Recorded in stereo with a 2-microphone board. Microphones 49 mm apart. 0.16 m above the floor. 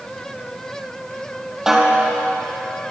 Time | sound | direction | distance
1.7 | a snare drum | 10° right (ahead or behind) | 3.5 m